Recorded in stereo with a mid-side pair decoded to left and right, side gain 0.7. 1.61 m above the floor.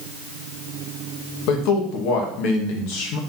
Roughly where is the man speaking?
Ahead left.